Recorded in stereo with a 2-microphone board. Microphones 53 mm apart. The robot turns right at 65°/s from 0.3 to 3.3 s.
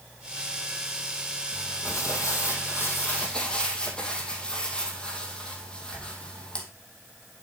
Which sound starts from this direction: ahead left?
Crumpling, at 1.5 s.